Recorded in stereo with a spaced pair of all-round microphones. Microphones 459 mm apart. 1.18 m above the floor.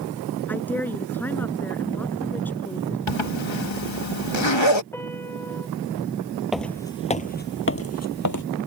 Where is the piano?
5° left (ahead or behind).